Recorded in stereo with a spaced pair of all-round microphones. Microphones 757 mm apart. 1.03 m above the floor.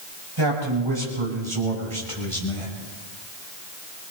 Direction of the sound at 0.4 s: 35° right (ahead or behind).